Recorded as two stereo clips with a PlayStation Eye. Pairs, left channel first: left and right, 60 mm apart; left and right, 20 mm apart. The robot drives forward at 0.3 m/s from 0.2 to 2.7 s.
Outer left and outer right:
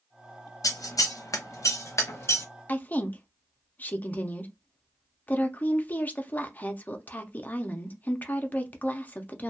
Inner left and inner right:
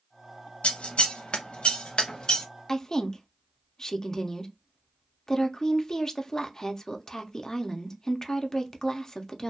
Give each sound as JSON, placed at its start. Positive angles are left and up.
{"t": 0.6, "sound": "scissors", "side_deg": 65, "distance_m": 0.6}
{"t": 2.7, "sound": "a woman speaking", "side_deg": 30, "distance_m": 0.5}